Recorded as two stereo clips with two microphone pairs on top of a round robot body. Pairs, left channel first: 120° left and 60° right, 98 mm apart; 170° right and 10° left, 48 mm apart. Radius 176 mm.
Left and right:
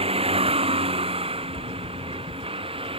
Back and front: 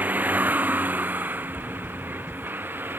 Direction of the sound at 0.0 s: 40° right.